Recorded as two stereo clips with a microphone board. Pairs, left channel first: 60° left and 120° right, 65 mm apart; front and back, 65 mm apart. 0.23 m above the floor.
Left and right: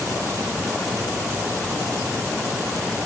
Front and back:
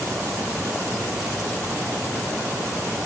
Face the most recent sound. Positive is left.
No sound to turn to.